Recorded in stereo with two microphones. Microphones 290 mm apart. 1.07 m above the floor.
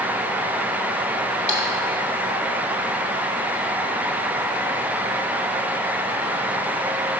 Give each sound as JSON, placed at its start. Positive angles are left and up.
{"t": 1.5, "sound": "a splash", "side_deg": 70, "distance_m": 1.8}